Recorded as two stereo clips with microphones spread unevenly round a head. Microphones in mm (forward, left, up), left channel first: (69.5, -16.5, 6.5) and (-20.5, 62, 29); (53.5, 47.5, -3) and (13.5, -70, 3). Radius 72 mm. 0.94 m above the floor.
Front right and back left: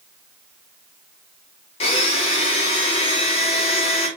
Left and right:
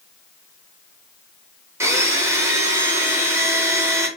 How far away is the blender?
About 0.7 m.